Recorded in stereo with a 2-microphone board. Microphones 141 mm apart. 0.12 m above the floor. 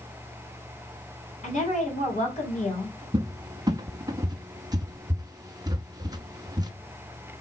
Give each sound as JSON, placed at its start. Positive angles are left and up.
{"t": 1.4, "sound": "a woman speaking", "side_deg": 60, "distance_m": 3.0}
{"t": 3.1, "sound": "a cupboard door", "side_deg": -30, "distance_m": 0.6}